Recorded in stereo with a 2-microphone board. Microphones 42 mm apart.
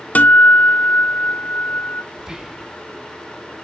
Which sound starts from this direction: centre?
Whispering, at 2.2 s.